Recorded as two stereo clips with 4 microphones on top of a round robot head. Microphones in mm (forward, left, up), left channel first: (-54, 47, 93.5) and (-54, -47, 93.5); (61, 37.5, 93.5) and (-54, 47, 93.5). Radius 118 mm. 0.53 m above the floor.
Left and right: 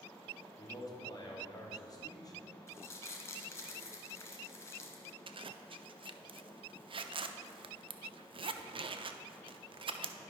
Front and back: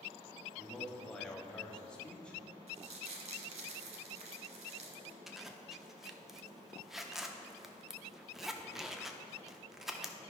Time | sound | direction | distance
0.6 | a man speaking | 75° left | 1.7 m
2.7 | crumpling | 150° left | 0.9 m
5.3 | a zipper | 100° right | 0.5 m